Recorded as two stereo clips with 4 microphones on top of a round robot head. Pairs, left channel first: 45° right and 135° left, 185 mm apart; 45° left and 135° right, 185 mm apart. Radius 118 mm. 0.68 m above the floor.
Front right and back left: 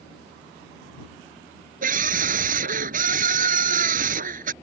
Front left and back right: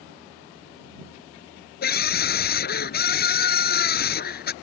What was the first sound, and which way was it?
A scream, 85° left.